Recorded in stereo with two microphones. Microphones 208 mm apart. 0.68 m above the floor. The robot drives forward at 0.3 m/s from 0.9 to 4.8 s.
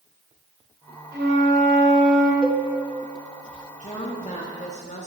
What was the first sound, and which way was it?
A flute, 60° right (ahead or behind).